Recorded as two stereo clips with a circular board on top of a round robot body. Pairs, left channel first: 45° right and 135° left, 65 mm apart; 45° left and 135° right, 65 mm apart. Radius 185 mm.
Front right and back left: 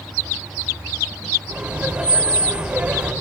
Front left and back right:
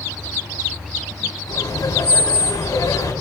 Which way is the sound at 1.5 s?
75° left.